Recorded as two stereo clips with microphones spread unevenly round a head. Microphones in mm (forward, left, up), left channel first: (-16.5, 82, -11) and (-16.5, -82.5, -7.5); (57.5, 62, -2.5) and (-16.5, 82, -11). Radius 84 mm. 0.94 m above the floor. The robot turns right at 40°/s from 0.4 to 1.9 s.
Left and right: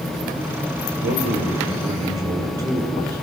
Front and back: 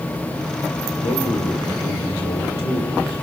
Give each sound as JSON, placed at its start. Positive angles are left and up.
{"t": 1.0, "sound": "a man speaking", "azimuth_deg": -55, "distance_m": 3.0}